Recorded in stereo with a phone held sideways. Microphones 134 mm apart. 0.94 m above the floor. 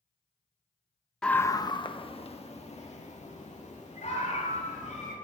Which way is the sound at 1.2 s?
5° left (ahead or behind).